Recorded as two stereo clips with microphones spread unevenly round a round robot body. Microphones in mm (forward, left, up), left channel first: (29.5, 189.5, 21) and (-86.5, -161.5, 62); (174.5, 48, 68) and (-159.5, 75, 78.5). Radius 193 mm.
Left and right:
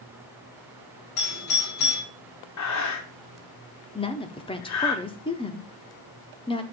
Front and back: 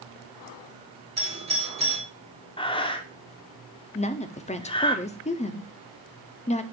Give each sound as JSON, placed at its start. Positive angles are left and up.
{"t": 1.2, "sound": "a doorbell", "azimuth_deg": 105, "distance_m": 3.5}
{"t": 2.6, "sound": "breathing", "azimuth_deg": 65, "distance_m": 1.1}
{"t": 4.0, "sound": "a woman speaking", "azimuth_deg": 35, "distance_m": 0.7}